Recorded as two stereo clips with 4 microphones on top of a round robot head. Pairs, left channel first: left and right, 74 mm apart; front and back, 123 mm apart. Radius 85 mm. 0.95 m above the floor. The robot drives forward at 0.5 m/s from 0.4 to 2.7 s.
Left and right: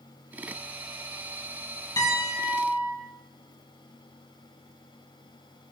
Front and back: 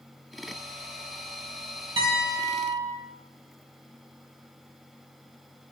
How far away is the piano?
About 4.5 m.